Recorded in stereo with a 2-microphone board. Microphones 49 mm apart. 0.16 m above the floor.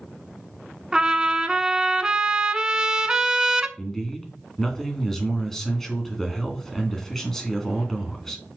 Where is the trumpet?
20° right (ahead or behind), 0.7 m.